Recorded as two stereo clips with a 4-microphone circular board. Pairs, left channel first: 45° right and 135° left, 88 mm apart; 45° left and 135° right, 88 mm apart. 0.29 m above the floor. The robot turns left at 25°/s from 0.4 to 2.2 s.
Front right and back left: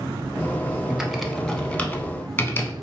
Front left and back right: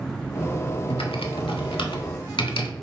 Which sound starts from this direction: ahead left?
Typing on a keyboard, at 0.9 s.